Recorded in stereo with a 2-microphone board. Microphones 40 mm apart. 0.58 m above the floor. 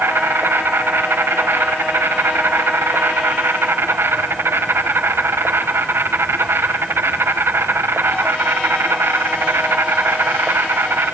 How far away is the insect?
About 5.5 m.